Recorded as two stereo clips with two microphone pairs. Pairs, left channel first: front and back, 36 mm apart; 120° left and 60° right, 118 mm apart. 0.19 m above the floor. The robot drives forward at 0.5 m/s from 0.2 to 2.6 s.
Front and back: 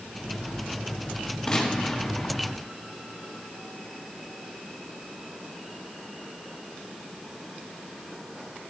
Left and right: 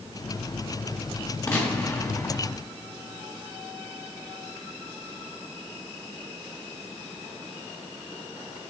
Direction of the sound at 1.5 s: 70° left.